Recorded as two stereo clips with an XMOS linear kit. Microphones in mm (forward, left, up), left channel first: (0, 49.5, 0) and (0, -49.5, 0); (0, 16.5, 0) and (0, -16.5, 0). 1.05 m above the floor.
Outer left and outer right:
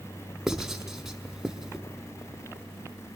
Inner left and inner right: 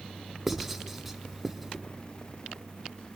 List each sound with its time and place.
0.5 s writing: 5° right (ahead or behind), 1.5 m